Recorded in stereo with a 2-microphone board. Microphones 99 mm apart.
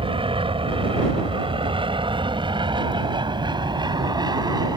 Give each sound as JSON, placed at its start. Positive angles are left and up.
{"t": 0.0, "sound": "an aircraft", "side_deg": -60}